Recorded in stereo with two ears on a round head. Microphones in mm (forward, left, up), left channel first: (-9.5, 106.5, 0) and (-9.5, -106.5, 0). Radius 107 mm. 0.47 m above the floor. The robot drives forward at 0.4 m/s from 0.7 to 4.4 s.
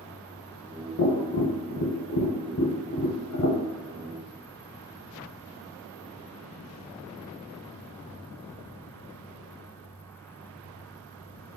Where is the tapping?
45° left (ahead or behind), 0.9 m; by 3.6 s 50° left (ahead or behind), 0.9 m.